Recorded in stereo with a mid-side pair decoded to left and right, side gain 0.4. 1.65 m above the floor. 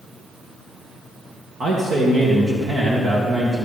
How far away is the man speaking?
About 2 m.